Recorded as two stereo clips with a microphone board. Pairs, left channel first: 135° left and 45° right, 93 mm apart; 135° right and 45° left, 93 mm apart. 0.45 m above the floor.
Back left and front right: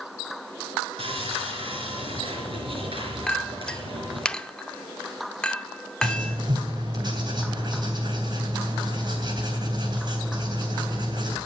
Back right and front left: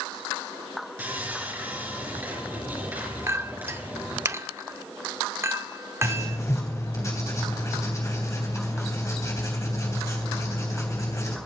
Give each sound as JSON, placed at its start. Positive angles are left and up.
{"t": 1.0, "sound": "sawing", "azimuth_deg": -25, "distance_m": 4.0}
{"t": 3.3, "sound": "a clink", "azimuth_deg": 65, "distance_m": 0.6}
{"t": 6.0, "sound": "writing", "azimuth_deg": -80, "distance_m": 3.0}